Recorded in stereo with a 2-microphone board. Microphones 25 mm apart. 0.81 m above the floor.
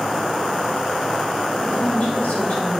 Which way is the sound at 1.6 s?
80° left.